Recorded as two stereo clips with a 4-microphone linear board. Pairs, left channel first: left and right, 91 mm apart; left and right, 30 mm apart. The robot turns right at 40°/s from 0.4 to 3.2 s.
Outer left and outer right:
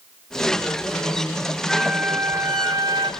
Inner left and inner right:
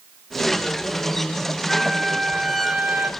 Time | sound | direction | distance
1.7 | a flute | 170° right | 2.5 m